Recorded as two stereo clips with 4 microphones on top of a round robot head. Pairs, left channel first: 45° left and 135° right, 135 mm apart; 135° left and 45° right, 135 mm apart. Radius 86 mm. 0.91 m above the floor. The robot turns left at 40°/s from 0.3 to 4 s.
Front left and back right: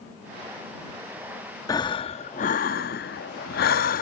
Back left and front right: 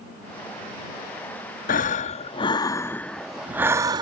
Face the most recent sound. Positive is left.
turn(degrees=20)